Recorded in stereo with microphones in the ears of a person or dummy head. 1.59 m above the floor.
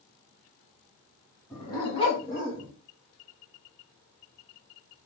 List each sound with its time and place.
1.5 s a dog barking: 25° left (ahead or behind), 2.5 m; by 2.7 s 45° left (ahead or behind), 1.8 m